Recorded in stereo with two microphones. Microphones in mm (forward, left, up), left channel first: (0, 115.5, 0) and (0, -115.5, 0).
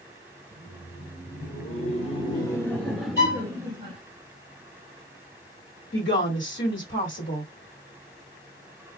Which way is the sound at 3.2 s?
55° left (ahead or behind).